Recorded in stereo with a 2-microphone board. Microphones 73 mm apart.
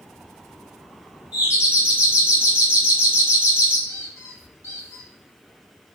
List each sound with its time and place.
1.3 s a doorbell: 20° right (ahead or behind), 1.7 m
3.9 s a squeak: 40° left (ahead or behind), 0.9 m